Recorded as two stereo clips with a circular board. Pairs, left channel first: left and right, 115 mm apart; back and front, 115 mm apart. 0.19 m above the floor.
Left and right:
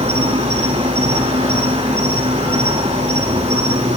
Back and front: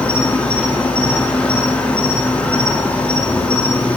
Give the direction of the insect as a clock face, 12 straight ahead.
3 o'clock.